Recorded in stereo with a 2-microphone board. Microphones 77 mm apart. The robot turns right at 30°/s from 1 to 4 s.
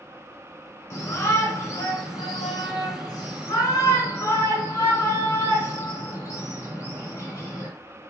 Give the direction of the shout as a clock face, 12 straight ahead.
11 o'clock.